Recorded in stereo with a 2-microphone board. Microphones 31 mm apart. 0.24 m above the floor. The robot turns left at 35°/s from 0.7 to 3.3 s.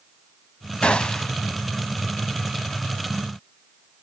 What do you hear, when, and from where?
0.8 s a gunshot: 30° left (ahead or behind), 0.7 m; by 1.3 s 20° left (ahead or behind), 0.7 m